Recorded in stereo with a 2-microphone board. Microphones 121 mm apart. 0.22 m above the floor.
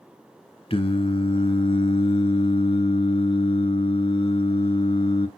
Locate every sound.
0.7 s singing: 50° left (ahead or behind), 1.2 m